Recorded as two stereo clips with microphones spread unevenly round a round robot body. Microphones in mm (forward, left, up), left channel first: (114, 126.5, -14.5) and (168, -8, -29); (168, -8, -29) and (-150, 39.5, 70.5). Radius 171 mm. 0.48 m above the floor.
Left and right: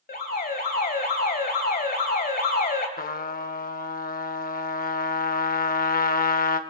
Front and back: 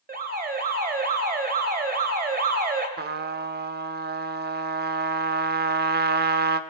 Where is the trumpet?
105° left, 0.8 m.